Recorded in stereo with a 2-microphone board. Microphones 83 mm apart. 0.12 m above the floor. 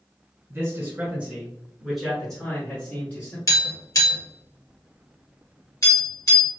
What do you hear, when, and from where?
0.5 s a man speaking: 30° right (ahead or behind), 1.6 m; by 3.4 s 25° left (ahead or behind), 1.7 m
3.5 s tapping: 40° left (ahead or behind), 1.6 m